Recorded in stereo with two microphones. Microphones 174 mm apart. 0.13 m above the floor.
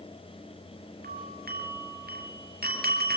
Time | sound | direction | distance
1.0 | a doorbell | 60° right (ahead or behind) | 4 m